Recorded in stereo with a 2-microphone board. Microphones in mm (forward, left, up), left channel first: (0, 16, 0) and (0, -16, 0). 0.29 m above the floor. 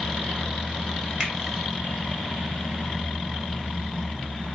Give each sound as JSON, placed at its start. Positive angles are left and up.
{"t": 1.2, "sound": "a finger snap", "side_deg": -35, "distance_m": 1.2}